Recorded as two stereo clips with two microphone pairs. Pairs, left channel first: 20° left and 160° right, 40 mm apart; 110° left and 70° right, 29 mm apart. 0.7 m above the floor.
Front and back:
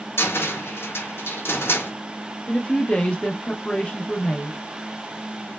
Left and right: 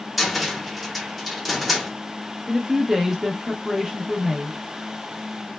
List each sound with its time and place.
0.2 s a cupboard door: 20° left, 0.6 m
2.5 s a woman speaking: 5° right, 0.6 m